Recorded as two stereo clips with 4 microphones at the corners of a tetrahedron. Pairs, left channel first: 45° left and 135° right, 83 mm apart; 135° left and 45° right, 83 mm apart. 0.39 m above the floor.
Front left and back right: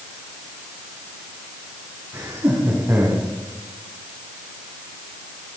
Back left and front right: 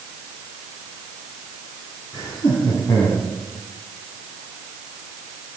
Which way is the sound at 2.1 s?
170° left.